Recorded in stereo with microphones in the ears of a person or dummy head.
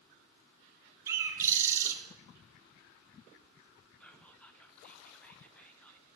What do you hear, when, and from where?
1.1 s a bird: 10° right (ahead or behind), 0.7 m
4.0 s whispering: 5° right (ahead or behind), 0.7 m